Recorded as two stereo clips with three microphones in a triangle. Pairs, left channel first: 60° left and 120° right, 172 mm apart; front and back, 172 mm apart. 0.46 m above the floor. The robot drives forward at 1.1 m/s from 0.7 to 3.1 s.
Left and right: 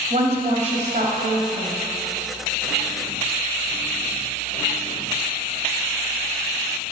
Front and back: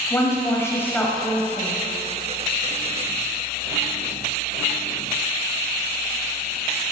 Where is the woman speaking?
75° right, 2 m; by 1.8 s 110° right, 2 m.